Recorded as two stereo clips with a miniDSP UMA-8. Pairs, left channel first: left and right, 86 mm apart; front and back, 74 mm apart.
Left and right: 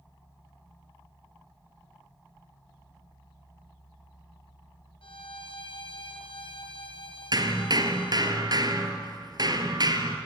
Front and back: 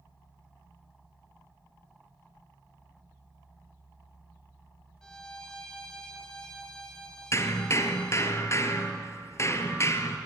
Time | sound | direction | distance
5.0 | a violin | 80° left | 2.0 m
7.3 | hammering | 50° right | 1.7 m